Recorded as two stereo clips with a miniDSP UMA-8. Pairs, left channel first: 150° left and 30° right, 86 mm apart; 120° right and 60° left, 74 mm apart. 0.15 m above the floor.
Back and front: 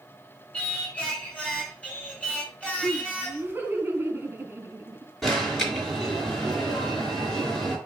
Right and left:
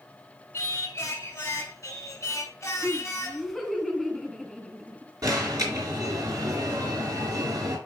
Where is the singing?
140° right, 1.5 m.